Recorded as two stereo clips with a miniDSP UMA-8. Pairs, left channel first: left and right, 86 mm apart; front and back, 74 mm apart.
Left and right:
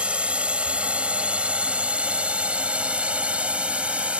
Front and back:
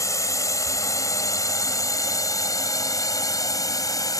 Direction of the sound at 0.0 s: 15° right.